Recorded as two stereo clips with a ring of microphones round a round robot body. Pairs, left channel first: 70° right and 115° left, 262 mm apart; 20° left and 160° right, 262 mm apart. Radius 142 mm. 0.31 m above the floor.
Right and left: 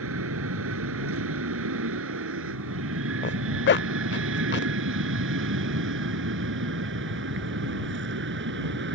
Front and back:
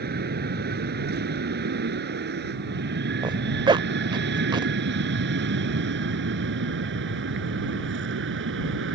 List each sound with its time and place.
0.0 s an aircraft: 150° left; by 8.9 s 160° left
3.2 s a zipper: 90° right